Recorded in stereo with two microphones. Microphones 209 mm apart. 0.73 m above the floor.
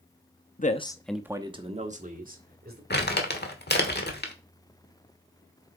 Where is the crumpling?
50° left (ahead or behind), 1.3 m.